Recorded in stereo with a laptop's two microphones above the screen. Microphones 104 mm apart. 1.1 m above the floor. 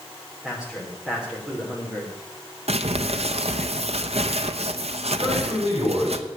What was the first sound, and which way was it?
A man speaking, 5° right (ahead or behind).